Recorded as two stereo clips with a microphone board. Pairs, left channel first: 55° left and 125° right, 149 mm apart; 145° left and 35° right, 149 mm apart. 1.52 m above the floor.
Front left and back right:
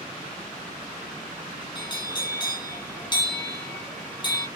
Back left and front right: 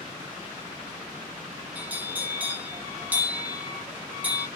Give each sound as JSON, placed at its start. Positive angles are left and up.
{"t": 1.8, "sound": "a bell", "azimuth_deg": 35, "distance_m": 0.9}